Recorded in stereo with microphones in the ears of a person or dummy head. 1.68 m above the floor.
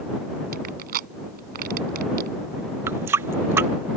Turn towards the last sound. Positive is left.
turn(degrees=-10)  # may be behind; listen again after turning